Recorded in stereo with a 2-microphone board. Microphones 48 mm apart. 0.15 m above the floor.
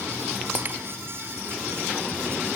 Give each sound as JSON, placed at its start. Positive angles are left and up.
{"t": 0.6, "sound": "breaking glass", "side_deg": -40, "distance_m": 1.4}